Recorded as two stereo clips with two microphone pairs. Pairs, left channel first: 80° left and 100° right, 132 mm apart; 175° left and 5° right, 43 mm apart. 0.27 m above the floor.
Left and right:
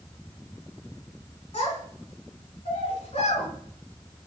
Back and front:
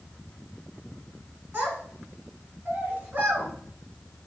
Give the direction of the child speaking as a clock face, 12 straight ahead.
10 o'clock.